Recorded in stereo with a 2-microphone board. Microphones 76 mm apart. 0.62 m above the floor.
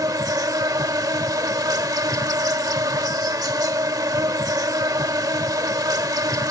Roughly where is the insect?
Right.